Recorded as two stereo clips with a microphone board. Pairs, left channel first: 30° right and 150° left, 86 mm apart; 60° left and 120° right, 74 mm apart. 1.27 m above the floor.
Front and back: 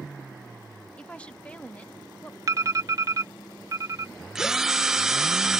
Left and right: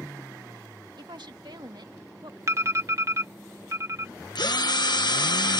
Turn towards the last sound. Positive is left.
turn(degrees=65)